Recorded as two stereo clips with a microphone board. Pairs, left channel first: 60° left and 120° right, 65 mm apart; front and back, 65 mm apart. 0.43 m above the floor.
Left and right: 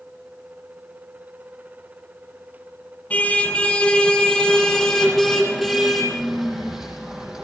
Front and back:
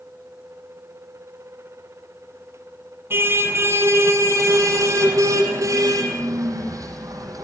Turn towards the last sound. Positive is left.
turn(degrees=160)